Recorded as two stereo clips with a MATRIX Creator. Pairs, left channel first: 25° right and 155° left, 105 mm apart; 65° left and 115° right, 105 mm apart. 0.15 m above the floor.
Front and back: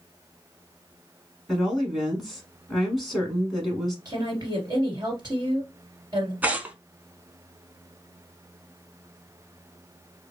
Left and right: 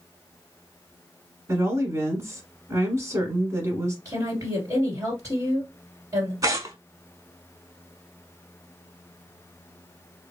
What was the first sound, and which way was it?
A woman speaking, 115° right.